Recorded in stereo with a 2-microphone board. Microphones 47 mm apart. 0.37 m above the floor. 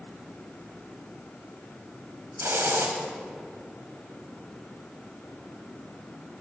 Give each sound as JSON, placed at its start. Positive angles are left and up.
{"t": 2.4, "sound": "a hiss", "side_deg": -60, "distance_m": 1.6}